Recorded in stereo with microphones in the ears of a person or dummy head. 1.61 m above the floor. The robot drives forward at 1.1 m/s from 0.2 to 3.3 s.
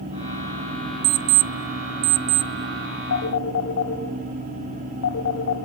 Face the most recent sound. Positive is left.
turn(degrees=80)